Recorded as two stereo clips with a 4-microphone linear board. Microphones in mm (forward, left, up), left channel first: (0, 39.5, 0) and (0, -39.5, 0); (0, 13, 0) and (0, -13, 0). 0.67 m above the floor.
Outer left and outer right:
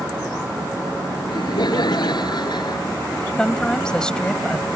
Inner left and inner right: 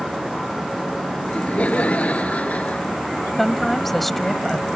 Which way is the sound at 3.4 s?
10° left (ahead or behind).